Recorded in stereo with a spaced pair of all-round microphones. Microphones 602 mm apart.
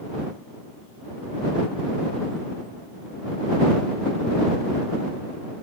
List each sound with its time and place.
Only background noise.